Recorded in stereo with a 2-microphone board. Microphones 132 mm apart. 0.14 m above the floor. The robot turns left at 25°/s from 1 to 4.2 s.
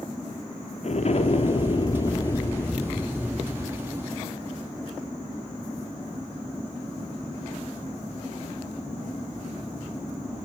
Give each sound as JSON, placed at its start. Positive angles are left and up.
{"t": 0.8, "sound": "an explosion", "azimuth_deg": 60, "distance_m": 0.7}